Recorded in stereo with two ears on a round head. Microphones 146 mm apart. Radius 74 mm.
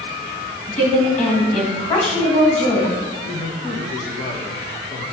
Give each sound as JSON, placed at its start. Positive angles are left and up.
{"t": 0.7, "sound": "a woman speaking", "side_deg": 40, "distance_m": 1.8}
{"t": 3.2, "sound": "a man speaking", "side_deg": 25, "distance_m": 1.1}